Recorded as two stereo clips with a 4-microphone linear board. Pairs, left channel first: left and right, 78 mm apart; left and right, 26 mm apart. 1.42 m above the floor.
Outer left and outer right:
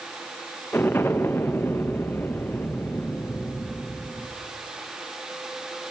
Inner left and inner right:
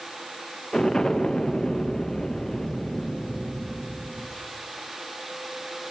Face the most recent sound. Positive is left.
turn(degrees=25)  # may be behind; listen again after turning